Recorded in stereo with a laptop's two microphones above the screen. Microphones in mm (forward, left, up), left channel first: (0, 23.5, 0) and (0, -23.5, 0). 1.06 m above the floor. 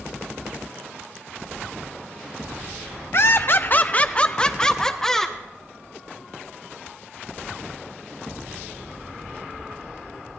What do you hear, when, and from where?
3.1 s laughter: 55° left (ahead or behind), 0.7 m; by 5.4 s 10° left (ahead or behind), 1.8 m